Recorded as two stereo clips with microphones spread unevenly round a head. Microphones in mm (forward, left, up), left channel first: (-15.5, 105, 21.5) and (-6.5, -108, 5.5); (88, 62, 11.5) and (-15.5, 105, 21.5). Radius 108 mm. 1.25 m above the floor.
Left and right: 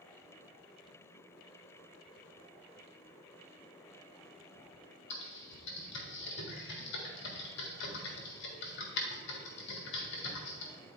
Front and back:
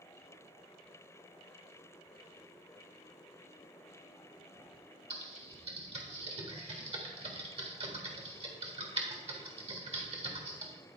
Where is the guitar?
No guitar in this recording.